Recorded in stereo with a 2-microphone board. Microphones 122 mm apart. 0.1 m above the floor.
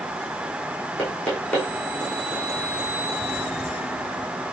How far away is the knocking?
About 4 m.